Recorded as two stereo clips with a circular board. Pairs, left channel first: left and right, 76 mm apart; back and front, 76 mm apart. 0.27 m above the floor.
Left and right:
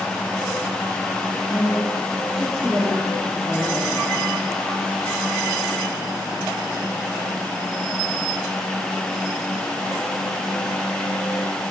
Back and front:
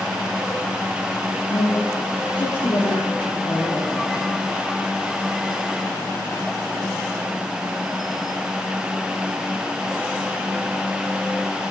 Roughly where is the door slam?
I don't hear a door slam.